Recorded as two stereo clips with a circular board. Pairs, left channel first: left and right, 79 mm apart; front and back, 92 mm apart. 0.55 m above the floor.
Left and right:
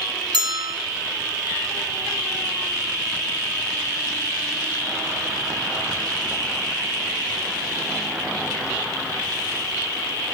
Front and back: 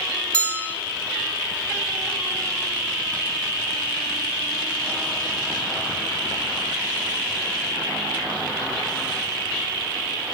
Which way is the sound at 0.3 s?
75° right.